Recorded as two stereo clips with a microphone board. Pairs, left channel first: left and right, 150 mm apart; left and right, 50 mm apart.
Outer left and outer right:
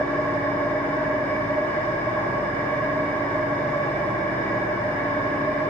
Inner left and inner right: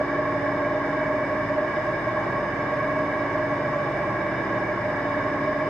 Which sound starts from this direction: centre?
An engine running, at 0.0 s.